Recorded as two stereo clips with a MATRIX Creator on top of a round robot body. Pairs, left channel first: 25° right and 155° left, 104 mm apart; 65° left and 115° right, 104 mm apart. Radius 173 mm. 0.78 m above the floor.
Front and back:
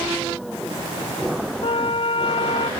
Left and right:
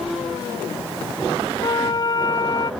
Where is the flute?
15° left.